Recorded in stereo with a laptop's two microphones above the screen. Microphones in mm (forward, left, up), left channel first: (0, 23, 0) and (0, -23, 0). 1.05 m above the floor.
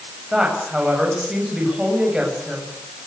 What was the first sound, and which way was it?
A woman speaking, 15° right (ahead or behind).